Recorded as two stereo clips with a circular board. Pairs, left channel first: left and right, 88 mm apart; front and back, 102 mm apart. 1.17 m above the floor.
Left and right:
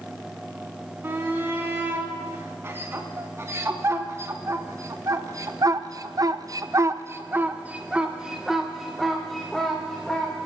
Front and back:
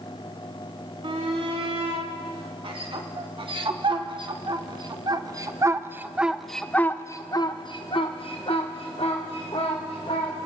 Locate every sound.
1.0 s a shout: 155° right, 3 m; by 10.3 s 5° left, 2 m